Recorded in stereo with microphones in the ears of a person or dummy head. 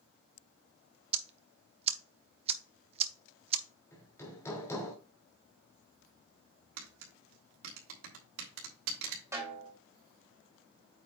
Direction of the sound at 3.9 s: 15° left (ahead or behind).